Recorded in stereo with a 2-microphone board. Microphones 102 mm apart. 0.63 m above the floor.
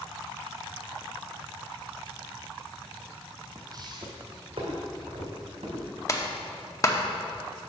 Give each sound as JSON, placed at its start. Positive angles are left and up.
{"t": 3.5, "sound": "footsteps", "side_deg": -30, "distance_m": 0.9}
{"t": 6.1, "sound": "a clap", "side_deg": 30, "distance_m": 0.7}